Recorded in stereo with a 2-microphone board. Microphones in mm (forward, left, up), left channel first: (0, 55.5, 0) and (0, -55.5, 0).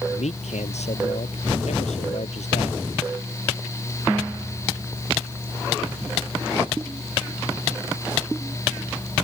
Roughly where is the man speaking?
Left.